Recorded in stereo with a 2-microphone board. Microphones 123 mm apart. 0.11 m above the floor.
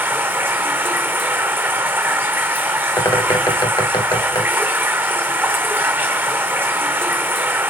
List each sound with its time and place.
0.0 s running water: 15° right (ahead or behind), 1.0 m
3.0 s a bird: 30° left (ahead or behind), 1.4 m